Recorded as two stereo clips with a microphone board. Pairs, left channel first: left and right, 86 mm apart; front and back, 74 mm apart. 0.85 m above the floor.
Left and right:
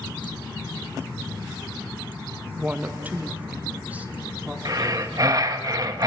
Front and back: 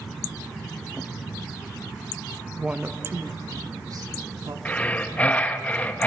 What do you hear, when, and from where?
2.6 s a woman speaking: 115° right, 0.9 m; by 4.5 s 160° right, 2.5 m
4.7 s breathing: 65° right, 1.1 m